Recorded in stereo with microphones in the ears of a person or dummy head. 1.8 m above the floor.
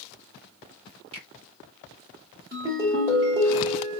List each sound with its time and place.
1.1 s a finger snap: 30° right (ahead or behind), 1.4 m
2.5 s a ringtone: 20° right (ahead or behind), 1.0 m